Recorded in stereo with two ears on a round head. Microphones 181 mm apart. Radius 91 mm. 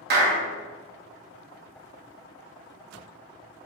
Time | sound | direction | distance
0.1 | a clap | 50° right (ahead or behind) | 1.2 m